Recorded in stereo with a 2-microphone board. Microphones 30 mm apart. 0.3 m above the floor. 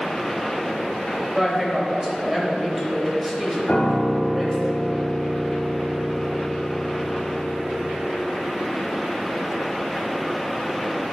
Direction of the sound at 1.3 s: 5° right (ahead or behind).